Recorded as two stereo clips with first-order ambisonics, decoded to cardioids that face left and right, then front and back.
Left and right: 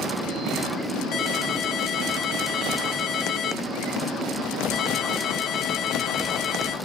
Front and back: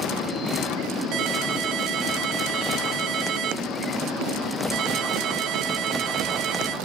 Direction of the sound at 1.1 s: 145° left.